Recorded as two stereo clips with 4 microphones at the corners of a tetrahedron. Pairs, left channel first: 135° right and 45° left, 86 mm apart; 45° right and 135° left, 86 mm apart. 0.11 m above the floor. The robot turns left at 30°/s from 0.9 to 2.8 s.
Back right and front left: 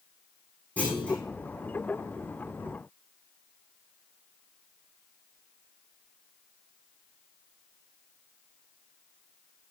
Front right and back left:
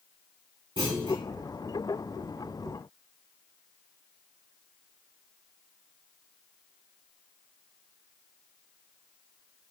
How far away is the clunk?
About 4.5 m.